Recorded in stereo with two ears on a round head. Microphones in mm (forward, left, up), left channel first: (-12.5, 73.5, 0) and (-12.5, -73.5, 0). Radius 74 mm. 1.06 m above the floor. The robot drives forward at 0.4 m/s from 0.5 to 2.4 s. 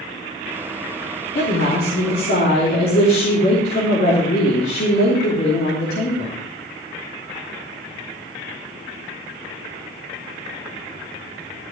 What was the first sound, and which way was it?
A woman speaking, 65° left (ahead or behind).